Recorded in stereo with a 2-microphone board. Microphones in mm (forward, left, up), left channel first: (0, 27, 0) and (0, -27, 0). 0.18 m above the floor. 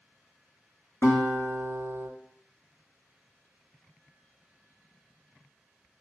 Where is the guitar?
60° left (ahead or behind), 0.7 m.